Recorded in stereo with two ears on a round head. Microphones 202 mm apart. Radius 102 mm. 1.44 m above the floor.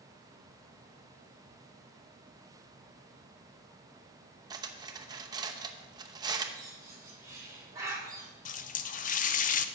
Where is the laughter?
No laughter in this recording.